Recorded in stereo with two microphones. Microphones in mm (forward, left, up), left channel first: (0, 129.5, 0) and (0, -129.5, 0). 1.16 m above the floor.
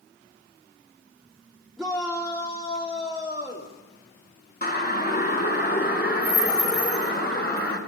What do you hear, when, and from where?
1.8 s a shout: centre (ahead or behind), 2.5 m; by 3.7 s 40° left (ahead or behind), 3 m
4.6 s a siren: 35° left (ahead or behind), 2.5 m